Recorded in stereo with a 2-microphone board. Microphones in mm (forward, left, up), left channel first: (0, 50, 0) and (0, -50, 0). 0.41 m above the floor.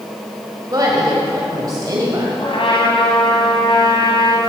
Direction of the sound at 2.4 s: 60° left (ahead or behind).